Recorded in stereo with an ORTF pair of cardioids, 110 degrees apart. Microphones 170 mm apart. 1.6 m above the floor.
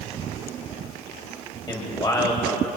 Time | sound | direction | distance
1.7 | a man speaking | 25° left | 8.5 m